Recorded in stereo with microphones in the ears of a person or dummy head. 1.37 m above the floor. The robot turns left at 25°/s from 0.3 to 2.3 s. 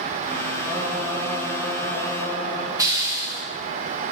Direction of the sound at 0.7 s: Straight behind.